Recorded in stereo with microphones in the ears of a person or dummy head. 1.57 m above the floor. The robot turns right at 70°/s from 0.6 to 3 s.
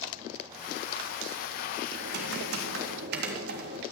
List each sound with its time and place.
1.9 s typing on a keyboard: 140° right, 3.5 m; by 3.8 s 65° right, 3.5 m